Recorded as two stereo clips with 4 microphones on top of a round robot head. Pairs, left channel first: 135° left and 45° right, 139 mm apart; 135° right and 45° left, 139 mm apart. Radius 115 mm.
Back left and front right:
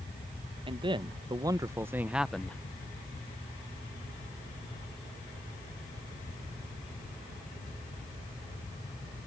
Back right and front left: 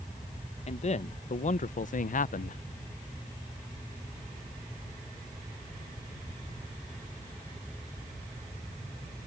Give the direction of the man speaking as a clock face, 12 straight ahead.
3 o'clock.